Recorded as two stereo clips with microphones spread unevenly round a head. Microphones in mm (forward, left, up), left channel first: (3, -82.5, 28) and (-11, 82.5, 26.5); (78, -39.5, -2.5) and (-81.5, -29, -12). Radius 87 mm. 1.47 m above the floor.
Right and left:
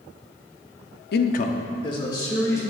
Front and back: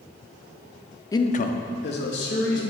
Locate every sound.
1.1 s a man speaking: 75° right, 0.5 m; by 2.6 s 15° right, 2 m